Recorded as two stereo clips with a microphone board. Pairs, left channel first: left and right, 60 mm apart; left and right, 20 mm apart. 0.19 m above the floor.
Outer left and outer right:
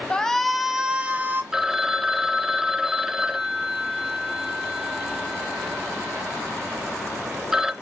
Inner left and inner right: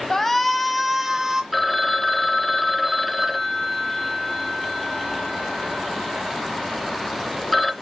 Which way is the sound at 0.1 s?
15° left (ahead or behind).